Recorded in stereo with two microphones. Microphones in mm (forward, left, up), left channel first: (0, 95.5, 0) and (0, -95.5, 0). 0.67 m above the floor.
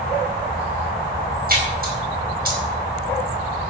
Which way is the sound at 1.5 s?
55° right (ahead or behind).